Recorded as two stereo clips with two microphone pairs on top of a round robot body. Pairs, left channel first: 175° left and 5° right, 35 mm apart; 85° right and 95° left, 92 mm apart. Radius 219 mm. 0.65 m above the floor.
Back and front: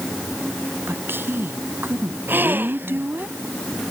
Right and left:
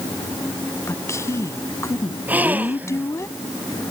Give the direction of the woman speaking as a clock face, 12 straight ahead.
1 o'clock.